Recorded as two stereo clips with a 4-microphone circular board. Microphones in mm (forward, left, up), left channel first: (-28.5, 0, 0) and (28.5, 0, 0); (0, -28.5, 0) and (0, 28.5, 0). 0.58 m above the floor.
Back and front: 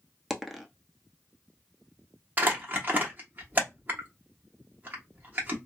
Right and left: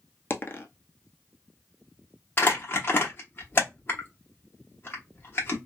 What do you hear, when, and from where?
0.3 s a dropped coin: 85° right, 0.6 m
2.4 s crumpling: 50° right, 1.0 m